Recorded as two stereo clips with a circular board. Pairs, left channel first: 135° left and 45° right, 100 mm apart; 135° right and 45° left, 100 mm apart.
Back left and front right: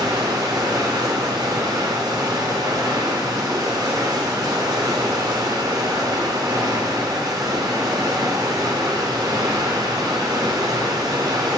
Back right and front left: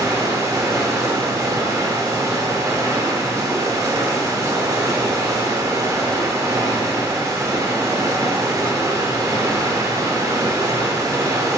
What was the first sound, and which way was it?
Running water, 5° right.